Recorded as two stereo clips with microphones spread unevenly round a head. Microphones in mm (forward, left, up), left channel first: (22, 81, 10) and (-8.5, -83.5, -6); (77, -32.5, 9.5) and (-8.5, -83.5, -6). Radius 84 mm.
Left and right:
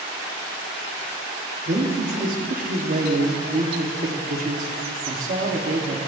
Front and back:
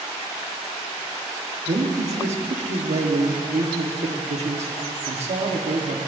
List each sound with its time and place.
1.7 s a man speaking: 145° right, 1.3 m